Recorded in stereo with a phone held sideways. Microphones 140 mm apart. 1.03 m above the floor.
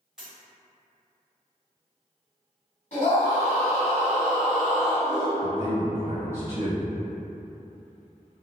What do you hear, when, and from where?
0.2 s a dropped coin: 5° right (ahead or behind), 1.2 m
2.9 s a scream: 55° left (ahead or behind), 1.5 m
5.4 s a man speaking: 15° right (ahead or behind), 0.8 m